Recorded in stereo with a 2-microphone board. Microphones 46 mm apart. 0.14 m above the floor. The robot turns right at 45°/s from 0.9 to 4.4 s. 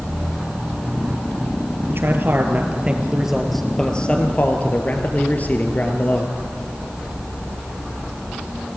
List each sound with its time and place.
1.9 s a man speaking: 75° right, 3 m; by 6.3 s 40° left, 3 m